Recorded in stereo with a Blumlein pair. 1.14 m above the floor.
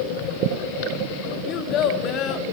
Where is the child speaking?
35° left, 1.5 m.